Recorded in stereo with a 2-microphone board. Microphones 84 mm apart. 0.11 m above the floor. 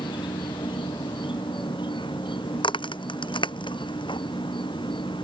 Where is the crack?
80° left.